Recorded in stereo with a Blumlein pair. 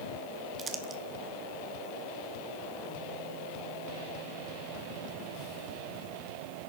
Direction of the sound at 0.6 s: 20° right.